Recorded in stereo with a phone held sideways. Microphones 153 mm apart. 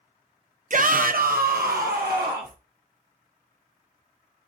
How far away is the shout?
About 0.5 m.